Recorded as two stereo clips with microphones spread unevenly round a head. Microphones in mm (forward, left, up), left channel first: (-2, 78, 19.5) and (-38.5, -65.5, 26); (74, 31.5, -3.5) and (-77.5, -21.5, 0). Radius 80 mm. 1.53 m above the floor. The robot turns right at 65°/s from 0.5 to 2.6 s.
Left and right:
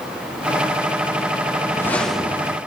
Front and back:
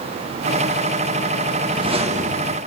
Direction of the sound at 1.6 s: 135° left.